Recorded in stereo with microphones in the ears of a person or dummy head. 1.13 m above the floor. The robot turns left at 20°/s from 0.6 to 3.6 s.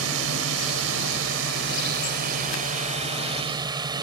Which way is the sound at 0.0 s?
90° right.